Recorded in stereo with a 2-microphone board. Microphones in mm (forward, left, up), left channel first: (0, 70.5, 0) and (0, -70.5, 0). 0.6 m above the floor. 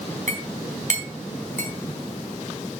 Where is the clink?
65° right (ahead or behind), 3.5 m.